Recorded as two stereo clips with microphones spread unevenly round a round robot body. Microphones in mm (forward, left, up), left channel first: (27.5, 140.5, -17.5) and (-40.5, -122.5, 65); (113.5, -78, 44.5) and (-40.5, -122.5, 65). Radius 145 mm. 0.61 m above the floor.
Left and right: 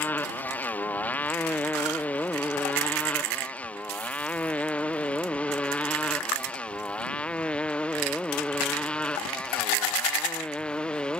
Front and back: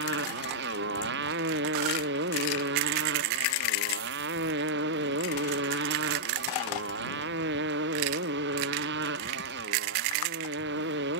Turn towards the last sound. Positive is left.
turn(degrees=165)